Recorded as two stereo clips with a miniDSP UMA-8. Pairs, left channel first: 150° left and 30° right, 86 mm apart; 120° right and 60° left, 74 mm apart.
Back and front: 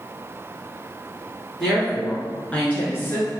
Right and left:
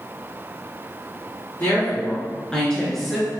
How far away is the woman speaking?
About 1.3 m.